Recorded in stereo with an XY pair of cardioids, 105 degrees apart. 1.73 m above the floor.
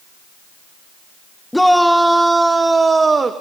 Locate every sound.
1.5 s a shout: 5° left, 1.2 m; by 3.3 s 30° right, 1.5 m